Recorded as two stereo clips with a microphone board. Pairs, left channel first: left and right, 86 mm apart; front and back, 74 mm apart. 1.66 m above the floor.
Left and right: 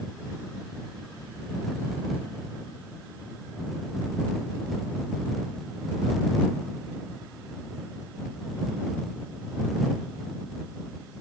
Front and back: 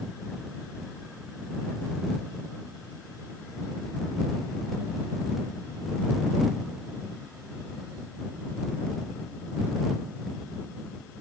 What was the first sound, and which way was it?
Only background noise.